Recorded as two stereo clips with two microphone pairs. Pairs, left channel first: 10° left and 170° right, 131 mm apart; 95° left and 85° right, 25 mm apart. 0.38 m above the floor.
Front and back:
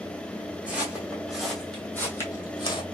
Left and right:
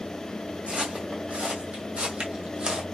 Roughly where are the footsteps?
Right.